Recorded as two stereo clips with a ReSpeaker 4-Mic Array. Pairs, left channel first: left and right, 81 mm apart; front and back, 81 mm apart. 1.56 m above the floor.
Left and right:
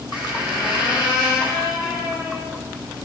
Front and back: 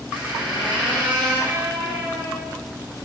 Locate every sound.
0.1 s a squeak: 110° left, 7.5 m